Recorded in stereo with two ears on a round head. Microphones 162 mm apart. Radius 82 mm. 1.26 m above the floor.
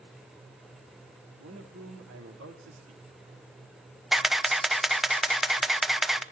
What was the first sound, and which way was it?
A man speaking, 90° right.